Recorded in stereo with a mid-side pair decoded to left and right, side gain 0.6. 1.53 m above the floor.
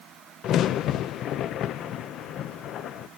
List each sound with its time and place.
0.4 s a crack: 55° left, 0.8 m